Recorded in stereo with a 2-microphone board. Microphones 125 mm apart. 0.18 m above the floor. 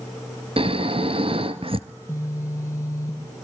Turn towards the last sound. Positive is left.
turn(degrees=25)  # may be behind; listen again after turning